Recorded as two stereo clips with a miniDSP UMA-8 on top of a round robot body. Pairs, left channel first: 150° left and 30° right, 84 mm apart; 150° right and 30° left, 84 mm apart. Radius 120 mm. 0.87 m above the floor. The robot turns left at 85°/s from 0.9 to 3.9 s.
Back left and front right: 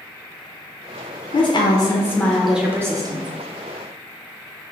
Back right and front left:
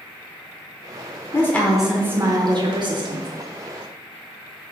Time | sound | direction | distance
1.3 | a woman speaking | 155° left | 0.9 m